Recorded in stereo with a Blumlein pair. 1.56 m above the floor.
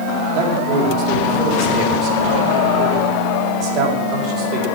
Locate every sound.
0.3 s a man speaking: 35° right, 4.5 m